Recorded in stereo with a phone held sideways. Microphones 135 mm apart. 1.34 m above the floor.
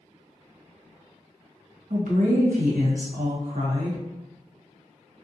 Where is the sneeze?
No sneeze in this recording.